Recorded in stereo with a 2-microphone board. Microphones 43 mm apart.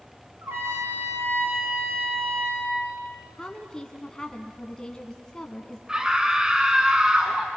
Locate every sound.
0.4 s a trumpet: 80° right, 6 m
3.4 s a woman speaking: 15° left (ahead or behind), 1.1 m
5.9 s a scream: 20° right (ahead or behind), 1.2 m